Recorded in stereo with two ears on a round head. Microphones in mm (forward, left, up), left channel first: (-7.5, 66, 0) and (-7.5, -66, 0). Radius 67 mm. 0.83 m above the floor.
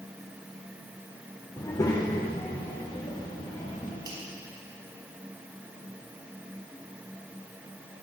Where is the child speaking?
25° left (ahead or behind), 1.3 m.